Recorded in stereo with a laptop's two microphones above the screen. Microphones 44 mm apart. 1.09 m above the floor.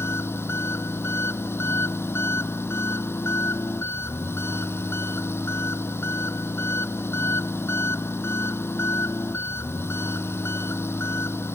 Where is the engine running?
65° left (ahead or behind).